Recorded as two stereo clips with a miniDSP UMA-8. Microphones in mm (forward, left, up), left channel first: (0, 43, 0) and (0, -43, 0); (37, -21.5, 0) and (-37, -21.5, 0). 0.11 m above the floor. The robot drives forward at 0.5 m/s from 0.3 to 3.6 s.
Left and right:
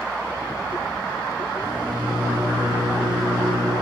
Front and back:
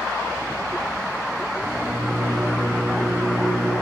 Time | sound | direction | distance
1.6 | a microwave | 115° right | 4.5 m